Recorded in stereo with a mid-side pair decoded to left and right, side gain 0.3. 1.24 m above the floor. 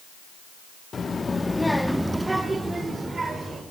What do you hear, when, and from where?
0.9 s a child speaking: 55° left, 1.7 m; by 3.6 s 55° right, 3.5 m